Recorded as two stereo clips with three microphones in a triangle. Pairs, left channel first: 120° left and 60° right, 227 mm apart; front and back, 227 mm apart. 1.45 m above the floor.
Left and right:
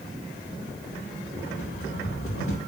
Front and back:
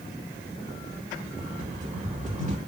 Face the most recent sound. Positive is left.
turn(degrees=125)